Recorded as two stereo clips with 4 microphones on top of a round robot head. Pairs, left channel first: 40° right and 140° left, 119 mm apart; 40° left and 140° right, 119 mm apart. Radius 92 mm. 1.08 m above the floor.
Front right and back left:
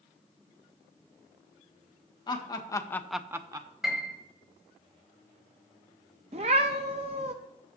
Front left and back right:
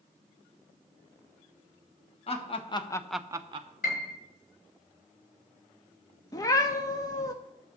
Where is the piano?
55° left, 1.3 m.